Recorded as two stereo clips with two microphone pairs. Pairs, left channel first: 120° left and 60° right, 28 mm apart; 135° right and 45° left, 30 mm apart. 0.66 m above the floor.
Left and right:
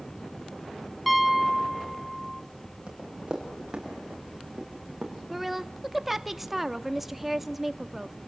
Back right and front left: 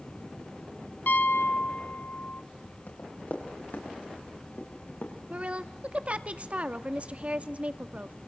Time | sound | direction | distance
1.1 | a piano | 145° right | 1.2 m
2.9 | running footsteps | 115° right | 7 m
5.3 | a woman speaking | 20° left | 1.1 m